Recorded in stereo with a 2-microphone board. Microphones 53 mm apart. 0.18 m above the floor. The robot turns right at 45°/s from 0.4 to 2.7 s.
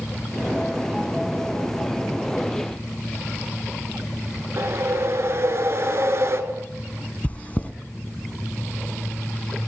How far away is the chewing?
About 0.7 m.